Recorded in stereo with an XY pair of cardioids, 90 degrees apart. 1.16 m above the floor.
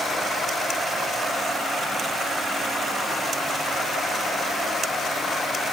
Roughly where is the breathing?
No breathing in this recording.